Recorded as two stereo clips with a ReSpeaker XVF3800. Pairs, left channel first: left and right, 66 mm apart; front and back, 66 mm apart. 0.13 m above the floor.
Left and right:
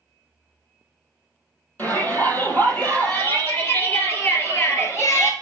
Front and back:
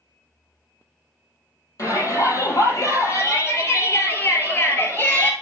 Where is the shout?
35° left, 4 m; by 5.3 s 60° left, 2.5 m.